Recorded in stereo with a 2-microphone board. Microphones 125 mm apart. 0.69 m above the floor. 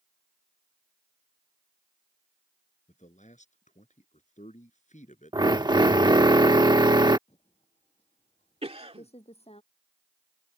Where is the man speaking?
75° left (ahead or behind).